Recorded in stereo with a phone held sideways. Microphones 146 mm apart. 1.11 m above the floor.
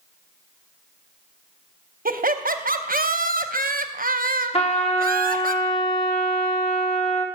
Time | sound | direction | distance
2.0 | laughter | 75° right (ahead or behind) | 0.7 m
4.5 | a trumpet | 40° left (ahead or behind) | 0.9 m